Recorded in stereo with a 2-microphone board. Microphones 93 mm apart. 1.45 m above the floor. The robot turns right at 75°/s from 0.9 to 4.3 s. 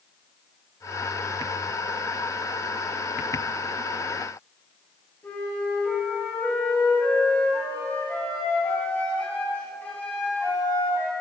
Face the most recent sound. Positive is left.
turn(degrees=25)  # may be behind; listen again after turning